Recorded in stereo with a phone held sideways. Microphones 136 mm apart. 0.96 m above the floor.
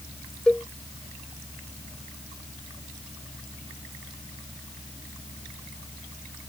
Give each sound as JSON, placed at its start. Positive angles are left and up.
{"t": 0.5, "sound": "a cowbell", "side_deg": 5}